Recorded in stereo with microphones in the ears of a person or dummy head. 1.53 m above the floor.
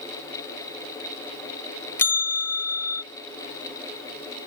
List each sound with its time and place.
2.0 s a bell: 15° left (ahead or behind)